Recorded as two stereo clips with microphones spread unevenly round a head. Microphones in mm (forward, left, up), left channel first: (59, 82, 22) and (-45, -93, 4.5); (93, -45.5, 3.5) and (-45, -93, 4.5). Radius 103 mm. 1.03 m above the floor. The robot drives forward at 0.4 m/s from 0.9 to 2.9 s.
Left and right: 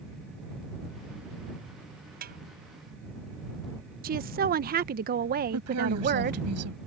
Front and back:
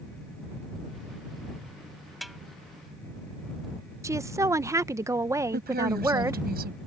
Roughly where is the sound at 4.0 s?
Right.